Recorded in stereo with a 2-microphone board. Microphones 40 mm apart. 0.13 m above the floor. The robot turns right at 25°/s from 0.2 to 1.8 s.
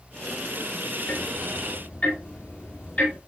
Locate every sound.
1.1 s ticking: 55° left (ahead or behind), 4 m; by 3.2 s 40° left (ahead or behind), 4 m